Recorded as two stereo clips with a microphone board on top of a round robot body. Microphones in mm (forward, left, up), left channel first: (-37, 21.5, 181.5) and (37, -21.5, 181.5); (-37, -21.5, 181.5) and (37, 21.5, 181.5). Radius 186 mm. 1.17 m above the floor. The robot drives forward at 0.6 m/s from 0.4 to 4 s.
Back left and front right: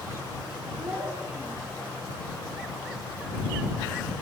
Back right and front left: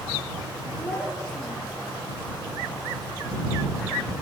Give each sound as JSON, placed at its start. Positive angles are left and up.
{"t": 0.8, "sound": "a child speaking", "azimuth_deg": -60, "distance_m": 1.3}